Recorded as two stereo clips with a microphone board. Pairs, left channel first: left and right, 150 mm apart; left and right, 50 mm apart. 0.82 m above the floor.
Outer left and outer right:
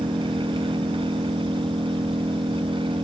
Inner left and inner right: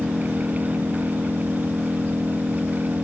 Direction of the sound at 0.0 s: 35° right (ahead or behind).